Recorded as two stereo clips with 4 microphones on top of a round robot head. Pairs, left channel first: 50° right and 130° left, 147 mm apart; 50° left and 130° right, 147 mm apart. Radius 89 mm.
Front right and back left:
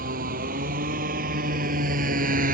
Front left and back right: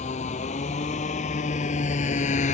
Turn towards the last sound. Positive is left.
turn(degrees=95)